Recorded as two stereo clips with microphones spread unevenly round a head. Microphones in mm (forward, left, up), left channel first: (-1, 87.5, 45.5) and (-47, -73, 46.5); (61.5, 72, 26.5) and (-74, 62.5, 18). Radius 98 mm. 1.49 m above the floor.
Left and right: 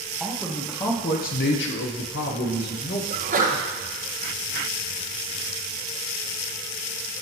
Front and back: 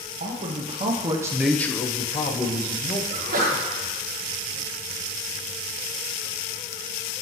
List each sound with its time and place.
0.2 s a man speaking: 160° left, 1.3 m; by 3.0 s 40° left, 1.8 m
3.1 s a sneeze: 145° right, 1.2 m